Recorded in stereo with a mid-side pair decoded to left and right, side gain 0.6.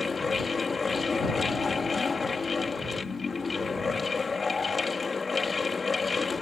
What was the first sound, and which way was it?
A fan, 20° left.